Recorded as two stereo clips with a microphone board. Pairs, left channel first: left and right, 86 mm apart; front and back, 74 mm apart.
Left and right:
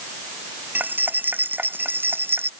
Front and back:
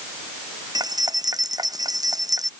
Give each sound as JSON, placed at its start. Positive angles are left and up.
{"t": 0.8, "sound": "keys jangling", "azimuth_deg": -155}